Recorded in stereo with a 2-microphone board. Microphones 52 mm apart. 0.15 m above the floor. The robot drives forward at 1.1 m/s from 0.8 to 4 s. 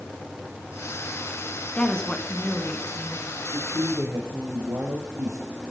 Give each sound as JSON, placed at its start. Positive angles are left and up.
{"t": 1.8, "sound": "a woman speaking", "side_deg": 15, "distance_m": 1.6}
{"t": 3.5, "sound": "a man speaking", "side_deg": -65, "distance_m": 4.0}